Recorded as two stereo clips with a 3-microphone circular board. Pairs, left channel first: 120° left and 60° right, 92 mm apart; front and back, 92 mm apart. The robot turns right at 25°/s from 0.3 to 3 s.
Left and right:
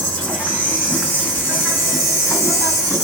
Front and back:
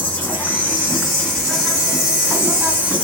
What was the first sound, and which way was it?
An insect, 50° left.